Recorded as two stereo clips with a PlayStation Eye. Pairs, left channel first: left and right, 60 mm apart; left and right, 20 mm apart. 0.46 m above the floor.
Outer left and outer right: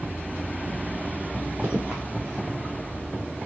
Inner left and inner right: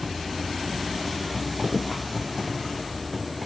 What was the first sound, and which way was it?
Footsteps, 20° right (ahead or behind).